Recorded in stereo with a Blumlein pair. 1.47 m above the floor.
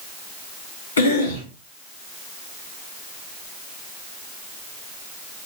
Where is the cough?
70° left, 1.9 m.